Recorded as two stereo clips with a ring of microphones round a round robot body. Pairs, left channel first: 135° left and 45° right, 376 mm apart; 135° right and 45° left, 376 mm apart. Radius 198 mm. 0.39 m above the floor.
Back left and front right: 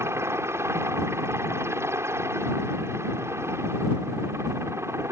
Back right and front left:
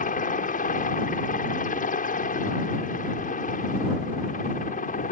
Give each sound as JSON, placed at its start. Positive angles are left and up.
{"t": 0.0, "sound": "a helicopter", "azimuth_deg": -115}